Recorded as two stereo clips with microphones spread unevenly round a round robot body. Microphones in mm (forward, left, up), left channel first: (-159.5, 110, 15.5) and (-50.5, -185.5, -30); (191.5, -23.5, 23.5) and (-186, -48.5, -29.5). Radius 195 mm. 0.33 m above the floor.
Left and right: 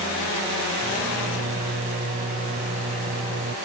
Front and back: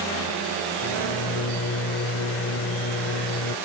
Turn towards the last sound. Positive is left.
turn(degrees=-40)